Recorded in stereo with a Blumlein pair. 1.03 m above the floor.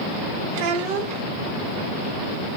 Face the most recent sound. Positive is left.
turn(degrees=-45)